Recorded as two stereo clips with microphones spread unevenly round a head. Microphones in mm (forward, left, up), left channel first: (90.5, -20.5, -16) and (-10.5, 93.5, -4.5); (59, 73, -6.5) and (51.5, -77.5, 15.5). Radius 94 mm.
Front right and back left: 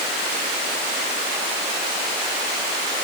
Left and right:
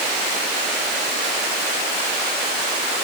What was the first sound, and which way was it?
Only background noise.